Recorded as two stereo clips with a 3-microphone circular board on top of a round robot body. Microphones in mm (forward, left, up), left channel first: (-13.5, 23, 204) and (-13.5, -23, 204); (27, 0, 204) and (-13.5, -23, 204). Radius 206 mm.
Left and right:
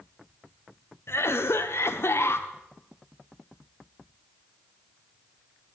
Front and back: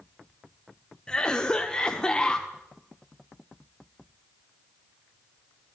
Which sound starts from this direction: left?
A cough, at 1.1 s.